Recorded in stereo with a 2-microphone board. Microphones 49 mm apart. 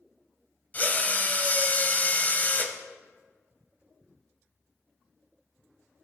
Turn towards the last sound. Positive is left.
turn(degrees=35)  # may be behind; listen again after turning